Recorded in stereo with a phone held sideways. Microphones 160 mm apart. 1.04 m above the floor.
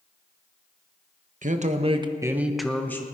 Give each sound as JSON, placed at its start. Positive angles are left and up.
{"t": 1.4, "sound": "a man speaking", "side_deg": -55, "distance_m": 1.2}